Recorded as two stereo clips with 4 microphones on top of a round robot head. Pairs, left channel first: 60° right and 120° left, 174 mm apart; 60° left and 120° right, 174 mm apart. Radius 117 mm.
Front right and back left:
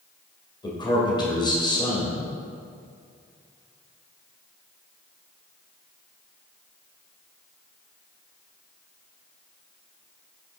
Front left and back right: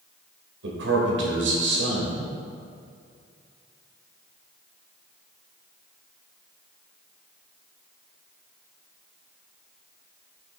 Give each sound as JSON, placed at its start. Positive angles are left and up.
{"t": 0.6, "sound": "a man speaking", "azimuth_deg": -125, "distance_m": 2.5}